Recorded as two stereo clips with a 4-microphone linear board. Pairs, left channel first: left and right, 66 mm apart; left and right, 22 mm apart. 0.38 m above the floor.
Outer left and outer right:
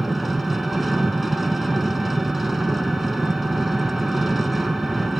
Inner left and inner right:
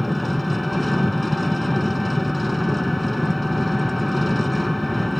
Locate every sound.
0.0 s an engine running: centre (ahead or behind), 0.9 m